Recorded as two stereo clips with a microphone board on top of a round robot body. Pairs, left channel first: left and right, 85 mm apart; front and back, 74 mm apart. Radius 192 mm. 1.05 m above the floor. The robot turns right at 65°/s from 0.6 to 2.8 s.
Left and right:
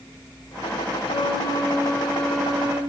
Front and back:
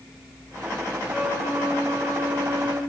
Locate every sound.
1.1 s a flute: 100° left, 5.5 m; by 2.8 s 145° right, 5.5 m